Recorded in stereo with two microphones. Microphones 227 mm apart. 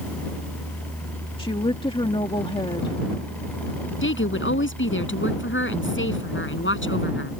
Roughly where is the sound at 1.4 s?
Left.